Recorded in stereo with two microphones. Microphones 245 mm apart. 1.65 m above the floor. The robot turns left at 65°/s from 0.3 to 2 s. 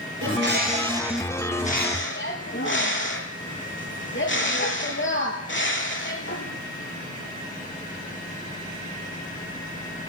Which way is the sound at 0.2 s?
120° right.